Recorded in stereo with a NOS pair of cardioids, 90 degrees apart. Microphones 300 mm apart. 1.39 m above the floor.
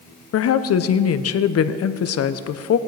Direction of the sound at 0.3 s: 55° left.